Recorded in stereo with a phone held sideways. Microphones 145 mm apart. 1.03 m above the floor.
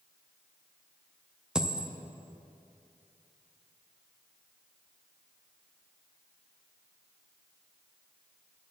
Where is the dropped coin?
5° right (ahead or behind), 0.5 m.